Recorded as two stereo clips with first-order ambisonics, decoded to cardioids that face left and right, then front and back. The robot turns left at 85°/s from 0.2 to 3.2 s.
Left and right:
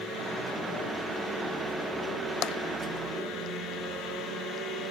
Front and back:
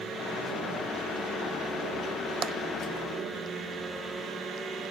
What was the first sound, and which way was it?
Tapping, 125° left.